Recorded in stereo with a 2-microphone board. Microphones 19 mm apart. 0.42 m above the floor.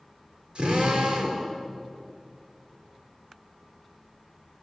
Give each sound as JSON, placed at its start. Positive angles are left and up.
{"t": 0.6, "sound": "a drill", "side_deg": -50, "distance_m": 7.0}